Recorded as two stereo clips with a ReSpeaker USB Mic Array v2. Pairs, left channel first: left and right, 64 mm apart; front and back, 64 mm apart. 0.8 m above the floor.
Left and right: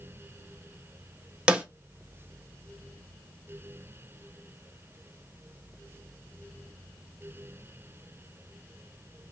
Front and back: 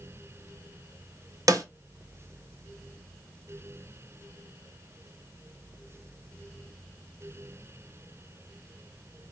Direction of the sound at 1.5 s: 160° right.